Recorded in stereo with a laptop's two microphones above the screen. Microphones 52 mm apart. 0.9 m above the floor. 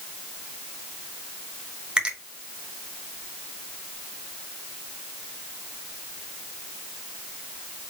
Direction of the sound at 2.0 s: 15° right (ahead or behind).